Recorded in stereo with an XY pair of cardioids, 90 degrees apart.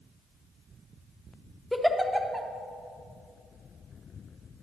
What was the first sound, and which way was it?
A giggle, straight ahead.